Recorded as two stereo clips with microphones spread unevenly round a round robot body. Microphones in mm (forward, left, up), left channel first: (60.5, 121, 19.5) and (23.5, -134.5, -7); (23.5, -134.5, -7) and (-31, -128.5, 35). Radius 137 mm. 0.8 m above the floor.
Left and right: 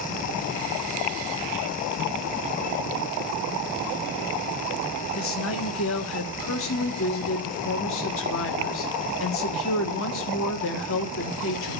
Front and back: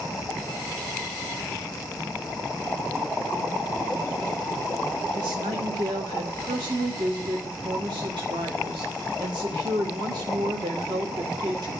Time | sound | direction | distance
5.2 | a woman speaking | 125° left | 1.5 m